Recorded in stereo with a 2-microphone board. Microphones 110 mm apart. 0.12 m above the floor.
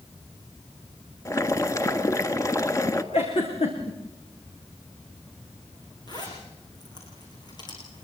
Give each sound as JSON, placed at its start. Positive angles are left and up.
{"t": 1.2, "sound": "boiling", "side_deg": 30, "distance_m": 1.4}
{"t": 3.1, "sound": "a giggle", "side_deg": 65, "distance_m": 6.0}
{"t": 6.1, "sound": "a zipper", "side_deg": 40, "distance_m": 9.0}